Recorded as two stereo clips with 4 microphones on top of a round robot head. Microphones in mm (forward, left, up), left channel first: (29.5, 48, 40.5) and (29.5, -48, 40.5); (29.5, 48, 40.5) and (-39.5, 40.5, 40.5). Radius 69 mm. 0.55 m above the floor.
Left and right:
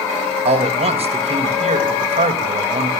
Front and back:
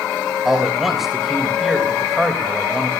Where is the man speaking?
85° right, 3 m.